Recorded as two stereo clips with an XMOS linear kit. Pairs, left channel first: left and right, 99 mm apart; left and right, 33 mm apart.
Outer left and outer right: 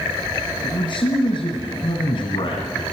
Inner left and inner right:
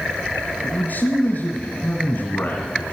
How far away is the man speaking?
About 2.5 m.